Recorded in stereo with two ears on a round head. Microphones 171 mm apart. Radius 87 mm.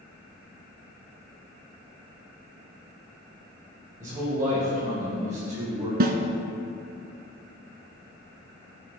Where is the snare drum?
50° right (ahead or behind), 0.9 m.